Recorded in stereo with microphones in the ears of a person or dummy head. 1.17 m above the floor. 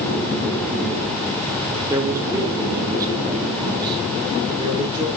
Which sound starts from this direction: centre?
A man speaking, at 1.9 s.